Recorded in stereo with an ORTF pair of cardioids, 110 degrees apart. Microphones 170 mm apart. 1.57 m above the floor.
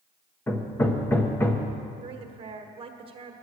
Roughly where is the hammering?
Ahead.